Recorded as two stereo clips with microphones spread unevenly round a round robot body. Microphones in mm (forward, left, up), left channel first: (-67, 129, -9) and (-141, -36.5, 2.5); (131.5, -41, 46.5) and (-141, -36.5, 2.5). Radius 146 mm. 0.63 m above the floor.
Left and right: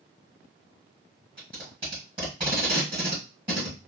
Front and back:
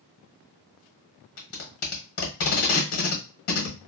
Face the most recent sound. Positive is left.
turn(degrees=-40)